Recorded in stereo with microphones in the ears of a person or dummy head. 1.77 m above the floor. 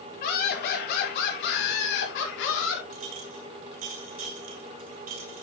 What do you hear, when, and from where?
0.2 s laughter: 55° left (ahead or behind), 5.5 m; by 2.8 s 80° left, 5.5 m
2.9 s a clink: 35° right (ahead or behind), 1.4 m